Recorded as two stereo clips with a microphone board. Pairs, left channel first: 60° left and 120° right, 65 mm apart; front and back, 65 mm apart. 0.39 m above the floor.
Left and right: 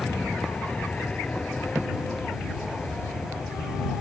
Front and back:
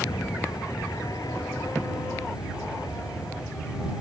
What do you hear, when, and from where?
0.0 s an aircraft: 15° right